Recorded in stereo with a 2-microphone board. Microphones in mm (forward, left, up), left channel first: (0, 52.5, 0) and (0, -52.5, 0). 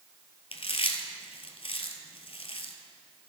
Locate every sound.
0.5 s chewing: 65° left (ahead or behind), 1.0 m